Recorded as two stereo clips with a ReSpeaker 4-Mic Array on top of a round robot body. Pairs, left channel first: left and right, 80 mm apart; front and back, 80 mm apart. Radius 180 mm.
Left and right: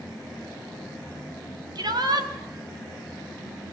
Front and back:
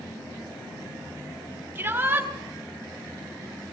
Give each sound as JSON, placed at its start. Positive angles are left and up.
{"t": 1.8, "sound": "a shout", "azimuth_deg": -115, "distance_m": 4.5}